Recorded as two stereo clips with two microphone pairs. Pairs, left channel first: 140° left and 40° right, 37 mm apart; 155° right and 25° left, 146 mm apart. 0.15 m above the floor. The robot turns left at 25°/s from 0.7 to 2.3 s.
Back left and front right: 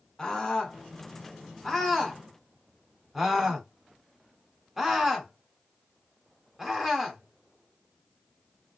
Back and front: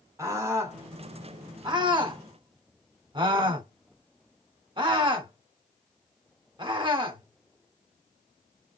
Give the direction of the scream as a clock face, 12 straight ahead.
9 o'clock.